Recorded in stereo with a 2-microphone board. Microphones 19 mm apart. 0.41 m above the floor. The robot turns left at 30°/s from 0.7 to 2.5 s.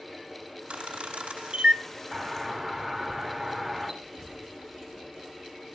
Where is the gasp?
No gasp in this recording.